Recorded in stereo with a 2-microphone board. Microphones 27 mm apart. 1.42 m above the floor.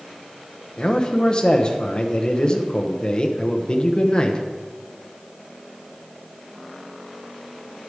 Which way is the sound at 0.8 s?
30° left (ahead or behind).